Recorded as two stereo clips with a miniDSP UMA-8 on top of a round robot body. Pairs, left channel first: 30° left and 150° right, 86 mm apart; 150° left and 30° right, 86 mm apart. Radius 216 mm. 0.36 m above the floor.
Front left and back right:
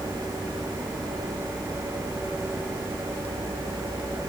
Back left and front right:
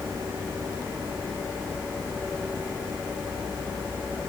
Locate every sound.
Only background noise.